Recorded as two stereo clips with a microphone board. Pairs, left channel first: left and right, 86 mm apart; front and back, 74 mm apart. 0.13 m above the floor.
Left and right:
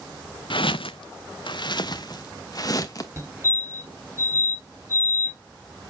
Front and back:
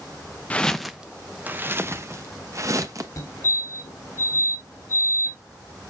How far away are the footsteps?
About 0.5 m.